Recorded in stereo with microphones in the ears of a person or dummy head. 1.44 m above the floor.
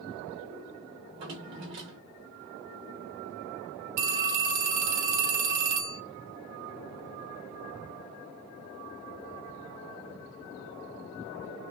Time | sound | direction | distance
1.0 | a drawer | 30° right (ahead or behind) | 0.9 m
4.0 | a phone ringing | 45° right (ahead or behind) | 0.6 m